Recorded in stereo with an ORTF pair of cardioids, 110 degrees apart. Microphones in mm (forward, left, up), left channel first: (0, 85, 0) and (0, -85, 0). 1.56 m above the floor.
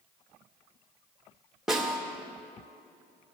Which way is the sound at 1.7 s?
Straight ahead.